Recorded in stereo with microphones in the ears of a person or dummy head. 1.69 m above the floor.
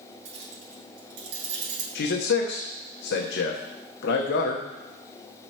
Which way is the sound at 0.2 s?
70° right (ahead or behind).